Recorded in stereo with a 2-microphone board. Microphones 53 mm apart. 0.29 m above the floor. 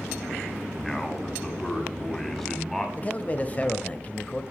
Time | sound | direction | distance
0.8 | a man speaking | 5° left (ahead or behind) | 1.9 m
3.0 | a man speaking | 25° left (ahead or behind) | 1.0 m